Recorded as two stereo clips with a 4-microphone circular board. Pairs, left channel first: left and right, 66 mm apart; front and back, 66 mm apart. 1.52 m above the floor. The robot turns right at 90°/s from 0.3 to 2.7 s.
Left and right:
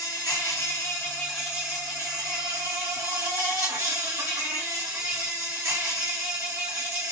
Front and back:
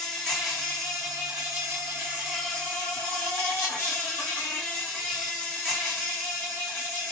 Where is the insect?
85° left, 1.2 m; by 7.1 s 60° right, 1.2 m.